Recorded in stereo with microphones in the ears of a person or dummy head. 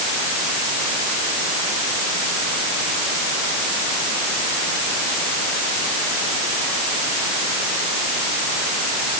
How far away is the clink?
No clink in this recording.